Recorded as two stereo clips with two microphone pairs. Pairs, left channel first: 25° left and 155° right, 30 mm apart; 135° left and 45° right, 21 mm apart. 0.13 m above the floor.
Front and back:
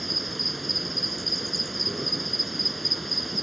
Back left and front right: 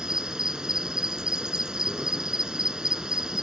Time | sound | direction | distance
0.0 | an insect | 65° right | 0.8 m